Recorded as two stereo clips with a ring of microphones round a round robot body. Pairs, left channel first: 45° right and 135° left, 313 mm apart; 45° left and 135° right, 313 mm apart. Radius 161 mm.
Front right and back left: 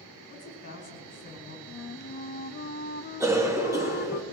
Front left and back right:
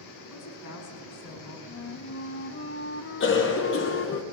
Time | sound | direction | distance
0.3 | a woman speaking | 10° left | 6 m
1.7 | a flute | 5° left | 0.6 m
3.2 | a cough | 60° left | 1.0 m